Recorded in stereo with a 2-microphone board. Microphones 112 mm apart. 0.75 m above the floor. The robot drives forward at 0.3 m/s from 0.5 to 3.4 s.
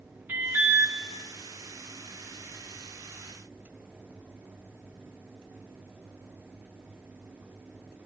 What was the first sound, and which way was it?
An alarm, 15° right (ahead or behind).